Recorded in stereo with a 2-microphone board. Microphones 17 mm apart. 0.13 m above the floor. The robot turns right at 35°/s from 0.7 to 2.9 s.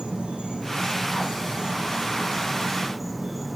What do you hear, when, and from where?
0.0 s an insect: 85° right, 2 m; by 3.5 s 5° right, 2 m